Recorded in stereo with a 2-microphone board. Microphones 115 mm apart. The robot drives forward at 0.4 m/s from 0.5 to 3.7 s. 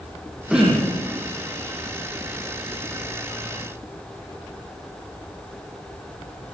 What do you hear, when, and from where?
0.5 s throat clearing: 5° right (ahead or behind), 7 m